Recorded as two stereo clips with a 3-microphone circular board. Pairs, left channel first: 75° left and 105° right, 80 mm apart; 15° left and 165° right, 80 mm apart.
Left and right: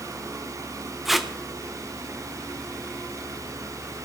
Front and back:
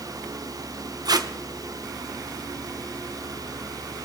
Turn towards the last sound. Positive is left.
turn(degrees=165)